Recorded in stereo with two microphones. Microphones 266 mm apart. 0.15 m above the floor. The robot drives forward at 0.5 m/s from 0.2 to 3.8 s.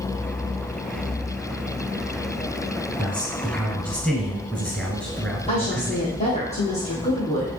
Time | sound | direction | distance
3.0 | a man speaking | 5° left (ahead or behind) | 1.3 m
5.5 | a woman speaking | 25° left (ahead or behind) | 2.0 m